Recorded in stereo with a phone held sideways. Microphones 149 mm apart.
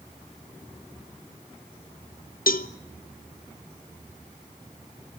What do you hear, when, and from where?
2.5 s a cowbell: 70° left (ahead or behind), 0.7 m